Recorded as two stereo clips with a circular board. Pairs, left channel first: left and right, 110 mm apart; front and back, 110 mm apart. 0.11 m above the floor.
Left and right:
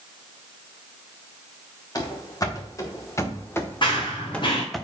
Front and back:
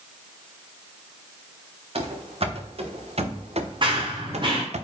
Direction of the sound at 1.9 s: 145° left.